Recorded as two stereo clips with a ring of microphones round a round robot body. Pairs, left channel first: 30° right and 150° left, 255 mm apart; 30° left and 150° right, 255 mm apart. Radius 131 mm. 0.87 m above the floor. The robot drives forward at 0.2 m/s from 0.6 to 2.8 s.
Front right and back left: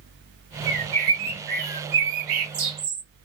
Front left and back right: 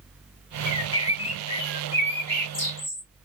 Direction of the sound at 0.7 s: 90° left.